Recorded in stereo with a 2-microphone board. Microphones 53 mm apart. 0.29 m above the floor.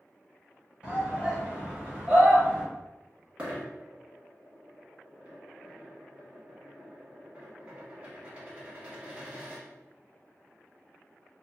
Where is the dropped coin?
25° right (ahead or behind), 1.1 m.